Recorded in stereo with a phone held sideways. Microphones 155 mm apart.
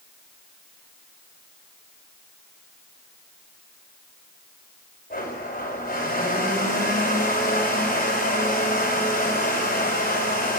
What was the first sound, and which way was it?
A blender, 80° left.